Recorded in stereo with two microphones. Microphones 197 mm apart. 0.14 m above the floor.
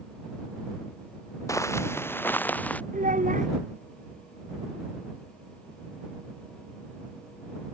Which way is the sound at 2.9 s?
40° right (ahead or behind).